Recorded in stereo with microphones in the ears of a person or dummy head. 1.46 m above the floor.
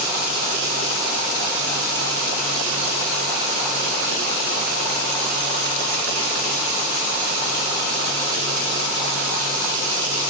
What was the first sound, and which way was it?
Only background noise.